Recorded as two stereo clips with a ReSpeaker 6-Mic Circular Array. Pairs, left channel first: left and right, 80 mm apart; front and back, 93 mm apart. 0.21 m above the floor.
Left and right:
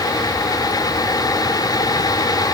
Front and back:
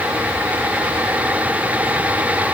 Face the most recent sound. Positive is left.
No sound to turn to.